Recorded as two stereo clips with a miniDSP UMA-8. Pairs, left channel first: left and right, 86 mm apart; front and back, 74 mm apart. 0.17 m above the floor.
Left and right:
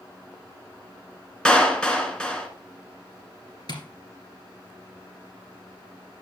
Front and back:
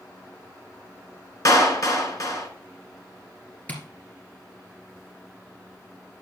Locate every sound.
1.4 s a clap: 15° left, 1.6 m
3.7 s tapping: 65° left, 2 m